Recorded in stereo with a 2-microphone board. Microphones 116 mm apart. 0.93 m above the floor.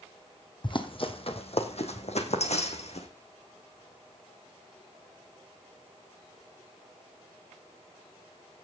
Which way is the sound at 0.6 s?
45° left (ahead or behind).